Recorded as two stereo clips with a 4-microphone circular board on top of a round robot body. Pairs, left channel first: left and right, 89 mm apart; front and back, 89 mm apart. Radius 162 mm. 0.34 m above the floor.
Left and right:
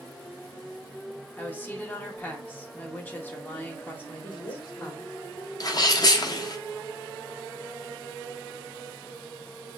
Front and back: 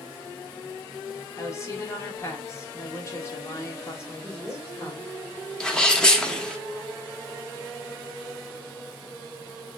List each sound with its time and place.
1.4 s a woman speaking: 30° left, 1.5 m
4.2 s a woman speaking: 85° left, 1.6 m
5.6 s a sneeze: 80° left, 1.1 m